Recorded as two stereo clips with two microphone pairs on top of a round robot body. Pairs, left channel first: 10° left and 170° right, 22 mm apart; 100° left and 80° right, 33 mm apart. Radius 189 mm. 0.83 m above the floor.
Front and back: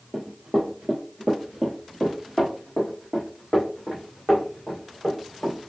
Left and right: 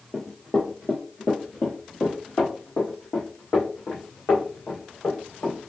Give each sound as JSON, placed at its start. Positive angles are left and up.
{"t": 0.1, "sound": "running footsteps", "azimuth_deg": -175, "distance_m": 0.9}